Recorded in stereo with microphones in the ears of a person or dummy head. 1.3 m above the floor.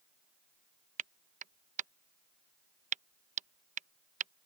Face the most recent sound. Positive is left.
turn(degrees=-40)  # may be behind; listen again after turning